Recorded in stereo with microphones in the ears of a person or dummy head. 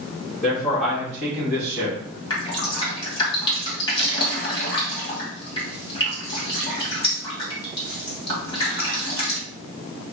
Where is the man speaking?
15° left (ahead or behind), 1.9 m; by 2.2 s 10° right (ahead or behind), 1.2 m.